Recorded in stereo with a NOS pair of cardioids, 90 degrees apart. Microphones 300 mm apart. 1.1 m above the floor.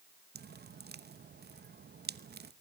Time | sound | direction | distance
0.3 | dripping | 30° right | 0.9 m